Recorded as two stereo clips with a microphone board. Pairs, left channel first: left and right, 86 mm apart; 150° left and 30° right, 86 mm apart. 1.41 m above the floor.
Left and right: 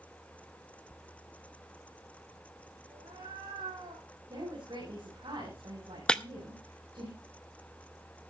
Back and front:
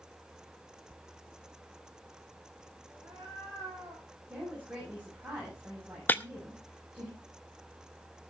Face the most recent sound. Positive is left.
turn(degrees=150)